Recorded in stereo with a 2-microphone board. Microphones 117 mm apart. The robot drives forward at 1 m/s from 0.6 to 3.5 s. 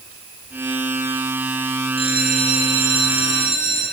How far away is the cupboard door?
I don't hear a cupboard door.